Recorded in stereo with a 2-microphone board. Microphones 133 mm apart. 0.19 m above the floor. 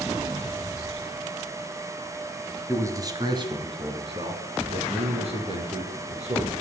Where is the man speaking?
20° right (ahead or behind), 1.6 m; by 6.5 s 50° right (ahead or behind), 4.5 m.